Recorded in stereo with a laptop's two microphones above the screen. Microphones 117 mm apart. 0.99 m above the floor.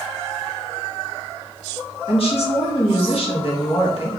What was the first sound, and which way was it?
A woman speaking, 55° left (ahead or behind).